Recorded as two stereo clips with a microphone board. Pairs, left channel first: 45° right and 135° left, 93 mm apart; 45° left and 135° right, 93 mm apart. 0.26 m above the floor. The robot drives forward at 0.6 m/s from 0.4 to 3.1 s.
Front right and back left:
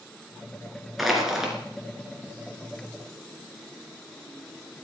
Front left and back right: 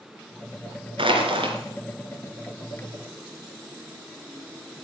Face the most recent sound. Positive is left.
turn(degrees=-150)